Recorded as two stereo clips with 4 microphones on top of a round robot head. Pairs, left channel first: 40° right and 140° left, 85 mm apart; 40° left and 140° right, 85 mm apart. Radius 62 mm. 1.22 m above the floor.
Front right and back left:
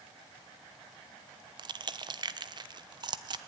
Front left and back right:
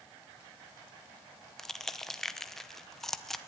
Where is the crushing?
125° left, 1.0 m.